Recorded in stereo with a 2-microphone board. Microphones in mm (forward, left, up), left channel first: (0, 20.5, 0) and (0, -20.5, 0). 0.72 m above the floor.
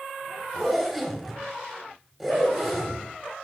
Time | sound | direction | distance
0.5 | a zipper | 5° right (ahead or behind) | 2.5 m